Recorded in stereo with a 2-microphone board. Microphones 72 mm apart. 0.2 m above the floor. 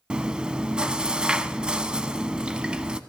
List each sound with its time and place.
0.1 s chewing: 15° right (ahead or behind), 0.5 m